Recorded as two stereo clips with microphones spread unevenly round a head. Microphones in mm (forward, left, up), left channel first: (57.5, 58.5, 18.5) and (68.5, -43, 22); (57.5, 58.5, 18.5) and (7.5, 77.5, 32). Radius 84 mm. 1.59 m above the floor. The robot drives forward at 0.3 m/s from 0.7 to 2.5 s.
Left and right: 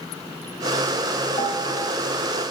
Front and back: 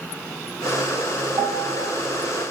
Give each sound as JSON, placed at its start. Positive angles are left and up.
{"t": 1.4, "sound": "a piano", "azimuth_deg": 160, "distance_m": 0.8}